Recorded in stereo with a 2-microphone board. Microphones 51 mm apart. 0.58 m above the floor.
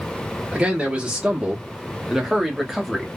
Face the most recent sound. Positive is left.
turn(degrees=0)  # may be behind; listen again after turning